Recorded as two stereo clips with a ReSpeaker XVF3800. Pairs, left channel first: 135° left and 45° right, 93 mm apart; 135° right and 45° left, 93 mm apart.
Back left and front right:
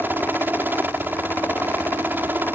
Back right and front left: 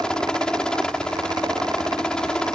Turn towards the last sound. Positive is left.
turn(degrees=-70)